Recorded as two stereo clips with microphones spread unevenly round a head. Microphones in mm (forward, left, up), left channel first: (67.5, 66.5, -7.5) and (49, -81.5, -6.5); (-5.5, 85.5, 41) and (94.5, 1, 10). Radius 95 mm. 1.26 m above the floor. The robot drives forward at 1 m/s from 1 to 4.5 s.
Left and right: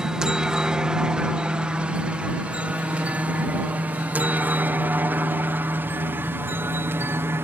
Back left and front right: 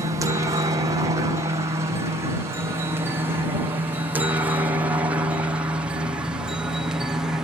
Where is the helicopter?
15° right; by 7.5 s 60° right.